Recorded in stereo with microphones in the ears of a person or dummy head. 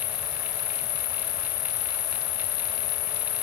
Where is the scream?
No scream in this recording.